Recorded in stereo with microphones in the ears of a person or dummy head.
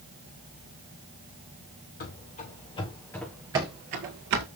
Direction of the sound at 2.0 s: 40° left (ahead or behind).